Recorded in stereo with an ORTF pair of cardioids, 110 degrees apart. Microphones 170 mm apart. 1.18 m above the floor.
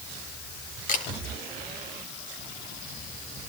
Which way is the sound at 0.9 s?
50° left.